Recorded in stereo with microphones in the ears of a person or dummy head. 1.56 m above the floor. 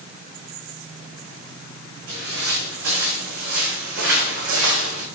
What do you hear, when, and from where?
2.1 s footsteps: 75° right (ahead or behind), 7.5 m; by 5.0 s 70° right (ahead or behind), 6.5 m